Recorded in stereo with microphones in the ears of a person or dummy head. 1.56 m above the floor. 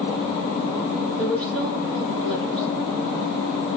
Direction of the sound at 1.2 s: 15° right (ahead or behind).